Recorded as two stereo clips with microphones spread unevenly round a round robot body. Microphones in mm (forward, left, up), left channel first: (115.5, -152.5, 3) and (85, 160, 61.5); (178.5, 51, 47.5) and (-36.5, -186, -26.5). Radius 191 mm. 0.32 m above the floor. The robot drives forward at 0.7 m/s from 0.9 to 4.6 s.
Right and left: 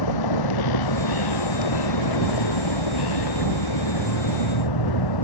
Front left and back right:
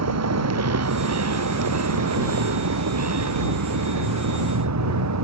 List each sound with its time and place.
0.0 s a vehicle: 95° right